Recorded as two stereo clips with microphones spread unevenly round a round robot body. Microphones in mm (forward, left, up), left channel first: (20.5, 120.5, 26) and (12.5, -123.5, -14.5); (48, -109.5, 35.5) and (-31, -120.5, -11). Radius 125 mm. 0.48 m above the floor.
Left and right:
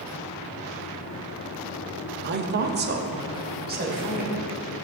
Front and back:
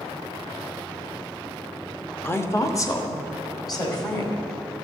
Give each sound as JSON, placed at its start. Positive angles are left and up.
{"t": 2.2, "sound": "a woman speaking", "azimuth_deg": -80, "distance_m": 1.0}